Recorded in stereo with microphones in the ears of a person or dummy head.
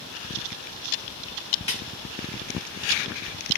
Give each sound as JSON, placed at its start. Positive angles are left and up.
{"t": 1.7, "sound": "a snare drum", "side_deg": 30, "distance_m": 1.5}